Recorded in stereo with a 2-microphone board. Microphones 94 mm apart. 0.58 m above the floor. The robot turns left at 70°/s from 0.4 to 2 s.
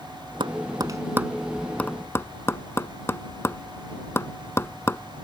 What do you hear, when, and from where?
0.4 s tapping: 65° right (ahead or behind); by 5.0 s 30° left (ahead or behind)